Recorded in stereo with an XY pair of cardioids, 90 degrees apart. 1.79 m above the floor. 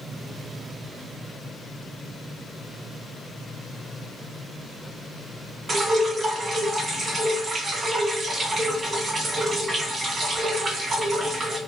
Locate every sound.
5.7 s dripping: 45° right, 1.5 m